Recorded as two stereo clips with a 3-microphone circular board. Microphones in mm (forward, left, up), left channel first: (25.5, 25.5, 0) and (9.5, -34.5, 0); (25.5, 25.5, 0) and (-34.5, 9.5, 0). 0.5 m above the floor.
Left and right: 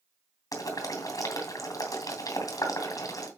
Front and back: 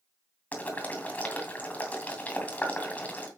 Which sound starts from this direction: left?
Boiling, at 0.5 s.